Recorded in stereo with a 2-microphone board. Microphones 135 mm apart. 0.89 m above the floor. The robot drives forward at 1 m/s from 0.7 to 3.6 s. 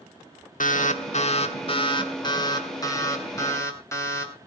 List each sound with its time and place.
0.6 s an alarm: 75° left (ahead or behind), 1.4 m; by 4.3 s 20° left (ahead or behind), 3.5 m